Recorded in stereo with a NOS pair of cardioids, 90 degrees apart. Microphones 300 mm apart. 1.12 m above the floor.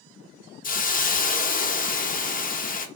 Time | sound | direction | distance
0.6 | a hiss | 30° left | 0.8 m